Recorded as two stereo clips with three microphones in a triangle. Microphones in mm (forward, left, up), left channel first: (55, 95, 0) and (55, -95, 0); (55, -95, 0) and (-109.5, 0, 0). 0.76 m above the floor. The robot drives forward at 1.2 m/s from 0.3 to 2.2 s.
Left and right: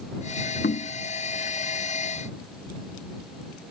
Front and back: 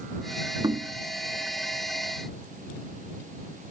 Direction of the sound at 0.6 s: 85° left.